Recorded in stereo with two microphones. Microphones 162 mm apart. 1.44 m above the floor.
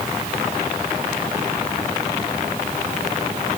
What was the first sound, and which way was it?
Only background noise.